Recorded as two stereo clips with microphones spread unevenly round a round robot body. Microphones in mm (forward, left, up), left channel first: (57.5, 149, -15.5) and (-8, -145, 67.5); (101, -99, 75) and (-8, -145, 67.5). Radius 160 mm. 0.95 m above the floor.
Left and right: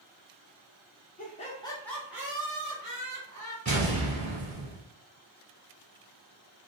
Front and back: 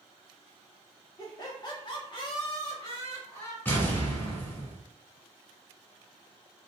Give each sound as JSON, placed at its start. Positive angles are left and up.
{"t": 1.2, "sound": "laughter", "azimuth_deg": 70, "distance_m": 0.9}
{"t": 3.6, "sound": "an explosion", "azimuth_deg": -45, "distance_m": 1.7}